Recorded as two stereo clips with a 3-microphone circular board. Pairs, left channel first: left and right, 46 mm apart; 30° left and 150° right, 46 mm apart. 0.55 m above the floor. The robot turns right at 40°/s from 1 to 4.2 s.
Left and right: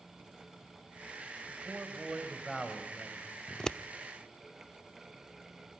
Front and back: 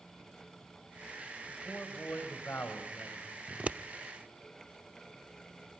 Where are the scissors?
155° left, 0.5 m; by 3.8 s 165° left, 0.5 m.